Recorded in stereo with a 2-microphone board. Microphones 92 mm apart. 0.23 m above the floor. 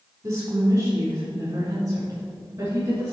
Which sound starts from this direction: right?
A woman speaking, at 0.2 s.